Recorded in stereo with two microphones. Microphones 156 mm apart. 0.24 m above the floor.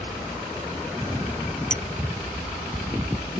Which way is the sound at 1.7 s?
55° left (ahead or behind).